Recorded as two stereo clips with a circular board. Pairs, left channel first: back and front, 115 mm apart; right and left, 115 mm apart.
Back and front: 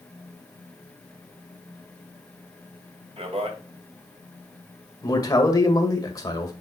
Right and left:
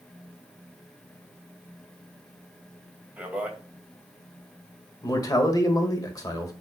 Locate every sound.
3.2 s a man speaking: 15° left, 2 m
5.0 s a man speaking: 135° right, 1.5 m